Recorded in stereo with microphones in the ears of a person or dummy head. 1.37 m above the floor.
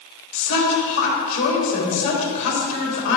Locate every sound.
0.3 s a woman speaking: 75° left (ahead or behind), 3 m